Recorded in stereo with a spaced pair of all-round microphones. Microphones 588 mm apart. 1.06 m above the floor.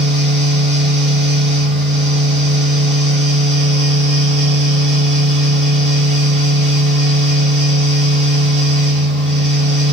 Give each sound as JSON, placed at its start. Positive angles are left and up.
{"t": 0.0, "sound": "a fan", "side_deg": -35, "distance_m": 1.8}